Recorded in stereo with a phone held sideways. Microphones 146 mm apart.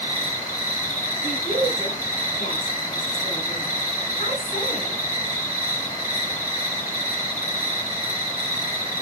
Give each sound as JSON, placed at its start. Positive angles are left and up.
{"t": 0.0, "sound": "an insect", "side_deg": 60, "distance_m": 2.5}
{"t": 1.2, "sound": "a woman speaking", "side_deg": 75, "distance_m": 5.0}